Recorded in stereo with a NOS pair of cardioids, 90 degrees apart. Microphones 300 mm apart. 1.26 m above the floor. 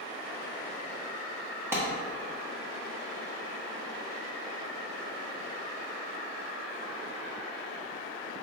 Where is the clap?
10° right, 1.3 m.